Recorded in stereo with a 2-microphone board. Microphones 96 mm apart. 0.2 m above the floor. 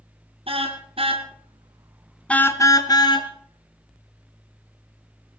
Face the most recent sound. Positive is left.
turn(degrees=50)  # may be behind; listen again after turning